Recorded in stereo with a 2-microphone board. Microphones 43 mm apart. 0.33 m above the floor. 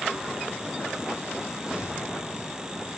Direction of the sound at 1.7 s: 25° right (ahead or behind).